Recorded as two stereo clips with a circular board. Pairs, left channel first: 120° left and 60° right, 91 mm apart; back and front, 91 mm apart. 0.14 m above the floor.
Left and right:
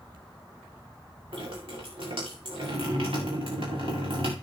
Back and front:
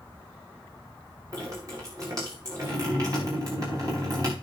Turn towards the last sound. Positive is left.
turn(degrees=-50)